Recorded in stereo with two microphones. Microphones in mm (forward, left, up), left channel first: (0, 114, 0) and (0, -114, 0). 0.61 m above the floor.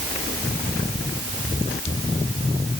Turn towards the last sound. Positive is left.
No sound to turn to.